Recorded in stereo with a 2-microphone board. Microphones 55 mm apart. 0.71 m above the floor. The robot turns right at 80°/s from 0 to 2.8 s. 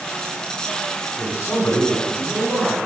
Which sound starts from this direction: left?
A man speaking, at 1.2 s.